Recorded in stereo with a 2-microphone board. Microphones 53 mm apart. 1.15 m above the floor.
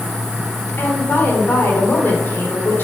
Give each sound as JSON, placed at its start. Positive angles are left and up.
{"t": 0.8, "sound": "a woman speaking", "side_deg": 40, "distance_m": 4.5}